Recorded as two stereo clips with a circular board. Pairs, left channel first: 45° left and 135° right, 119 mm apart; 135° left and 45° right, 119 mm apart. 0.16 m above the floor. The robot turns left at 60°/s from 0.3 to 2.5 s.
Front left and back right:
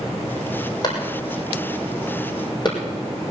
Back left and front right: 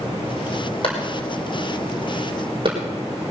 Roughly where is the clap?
Left.